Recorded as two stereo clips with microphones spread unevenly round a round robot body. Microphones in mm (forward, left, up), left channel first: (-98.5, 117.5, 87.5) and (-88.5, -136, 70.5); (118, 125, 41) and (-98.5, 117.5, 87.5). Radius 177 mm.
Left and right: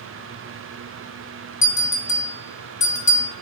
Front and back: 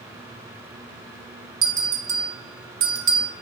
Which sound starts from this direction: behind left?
A bell, at 1.6 s.